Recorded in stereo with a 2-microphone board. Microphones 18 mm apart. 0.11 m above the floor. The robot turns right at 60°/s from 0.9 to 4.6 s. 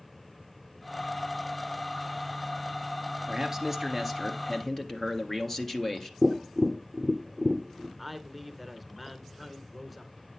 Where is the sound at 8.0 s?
Centre (ahead or behind), 1.1 m.